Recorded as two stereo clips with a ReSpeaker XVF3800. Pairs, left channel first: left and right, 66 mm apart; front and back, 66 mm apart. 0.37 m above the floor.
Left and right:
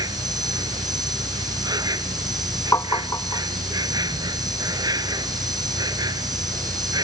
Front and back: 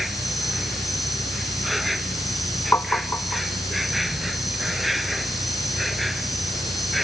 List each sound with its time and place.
0.0 s an insect: 90° right
2.7 s tapping: 55° left